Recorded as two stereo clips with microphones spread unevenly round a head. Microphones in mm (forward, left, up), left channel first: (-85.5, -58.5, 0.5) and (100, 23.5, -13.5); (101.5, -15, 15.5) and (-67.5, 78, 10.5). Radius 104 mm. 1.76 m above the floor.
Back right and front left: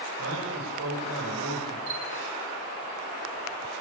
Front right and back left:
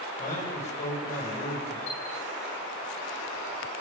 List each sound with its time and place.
0.2 s a man speaking: 20° left, 9.5 m
1.9 s a chime: 10° right, 7.5 m